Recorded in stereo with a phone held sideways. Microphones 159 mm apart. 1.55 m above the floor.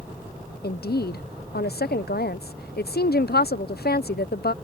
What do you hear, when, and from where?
0.6 s a woman speaking: 80° left